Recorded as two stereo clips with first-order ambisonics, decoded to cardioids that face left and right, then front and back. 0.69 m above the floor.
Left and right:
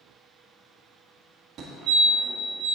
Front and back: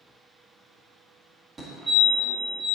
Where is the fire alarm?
120° right, 1.8 m.